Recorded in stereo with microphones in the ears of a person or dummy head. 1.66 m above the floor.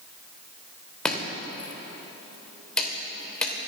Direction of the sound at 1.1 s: 10° left (ahead or behind).